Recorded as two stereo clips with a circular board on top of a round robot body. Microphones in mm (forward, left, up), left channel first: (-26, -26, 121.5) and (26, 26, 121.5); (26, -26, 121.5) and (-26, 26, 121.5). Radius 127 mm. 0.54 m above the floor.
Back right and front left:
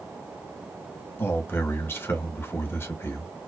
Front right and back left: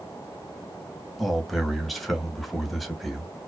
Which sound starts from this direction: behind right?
A man speaking, at 1.2 s.